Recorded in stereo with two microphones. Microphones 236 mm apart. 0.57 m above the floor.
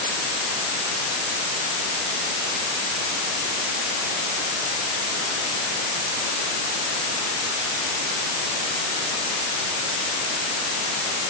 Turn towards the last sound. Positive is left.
No sound to turn to.